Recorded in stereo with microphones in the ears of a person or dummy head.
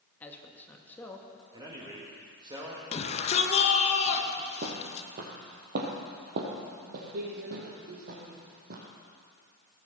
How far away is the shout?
About 1.9 m.